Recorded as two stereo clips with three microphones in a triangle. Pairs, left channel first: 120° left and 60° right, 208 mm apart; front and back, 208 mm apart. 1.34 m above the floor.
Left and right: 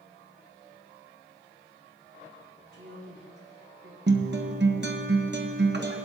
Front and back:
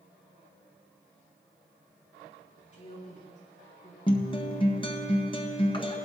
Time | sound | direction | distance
2.7 | a woman speaking | 50° right | 5 m
4.1 | a guitar | 60° right | 0.7 m